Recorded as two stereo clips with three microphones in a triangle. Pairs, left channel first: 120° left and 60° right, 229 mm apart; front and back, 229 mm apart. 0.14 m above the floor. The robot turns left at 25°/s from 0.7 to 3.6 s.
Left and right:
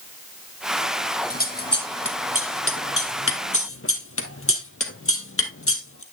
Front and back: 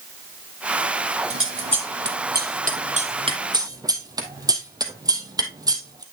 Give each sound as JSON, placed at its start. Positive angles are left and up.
{"t": 1.3, "sound": "scissors", "azimuth_deg": 165, "distance_m": 1.0}